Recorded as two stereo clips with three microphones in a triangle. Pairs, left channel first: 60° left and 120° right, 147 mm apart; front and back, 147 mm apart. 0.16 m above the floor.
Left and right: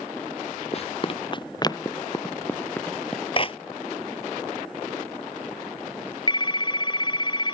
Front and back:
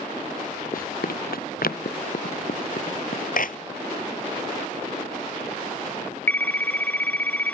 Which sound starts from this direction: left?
A phone ringing, at 6.3 s.